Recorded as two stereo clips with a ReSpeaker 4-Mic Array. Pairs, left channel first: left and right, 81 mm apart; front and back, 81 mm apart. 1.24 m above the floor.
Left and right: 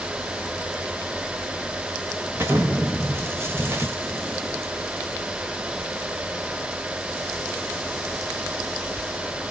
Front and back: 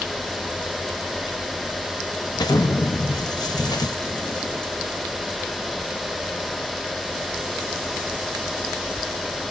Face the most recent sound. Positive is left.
turn(degrees=-30)